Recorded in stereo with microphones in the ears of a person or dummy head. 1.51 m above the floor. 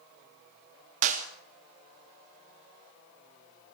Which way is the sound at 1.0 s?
45° right (ahead or behind).